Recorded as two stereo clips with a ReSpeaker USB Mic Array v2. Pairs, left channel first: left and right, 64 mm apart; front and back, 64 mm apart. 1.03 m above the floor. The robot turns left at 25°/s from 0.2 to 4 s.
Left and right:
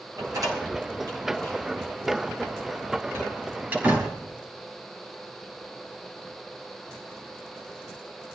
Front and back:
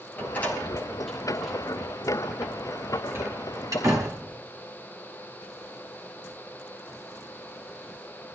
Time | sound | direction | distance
0.2 | a door slam | 65° right | 5.5 m